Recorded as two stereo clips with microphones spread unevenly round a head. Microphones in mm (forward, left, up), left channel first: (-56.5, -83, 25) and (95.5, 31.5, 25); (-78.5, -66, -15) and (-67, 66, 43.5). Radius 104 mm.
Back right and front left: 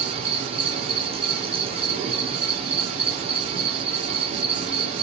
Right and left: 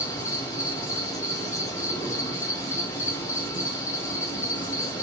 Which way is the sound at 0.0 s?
25° right.